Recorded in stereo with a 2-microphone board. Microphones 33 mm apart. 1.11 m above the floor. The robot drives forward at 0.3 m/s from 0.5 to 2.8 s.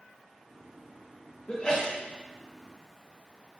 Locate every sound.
1.5 s a sneeze: 25° left (ahead or behind), 0.5 m; by 2.0 s 20° left (ahead or behind), 0.6 m